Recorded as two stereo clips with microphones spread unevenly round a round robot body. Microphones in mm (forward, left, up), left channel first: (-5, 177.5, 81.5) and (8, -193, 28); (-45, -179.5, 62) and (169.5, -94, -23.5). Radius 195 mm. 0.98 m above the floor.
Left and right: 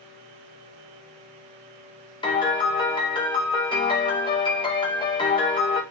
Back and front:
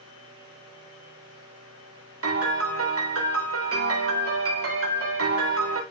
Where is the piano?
15° left, 4 m.